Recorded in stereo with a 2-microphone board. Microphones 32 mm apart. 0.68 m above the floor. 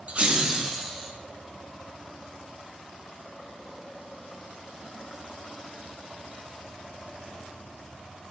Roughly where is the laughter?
Right.